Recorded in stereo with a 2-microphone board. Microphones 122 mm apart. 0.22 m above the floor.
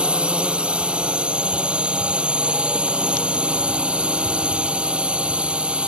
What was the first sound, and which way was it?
A drone, 10° right (ahead or behind).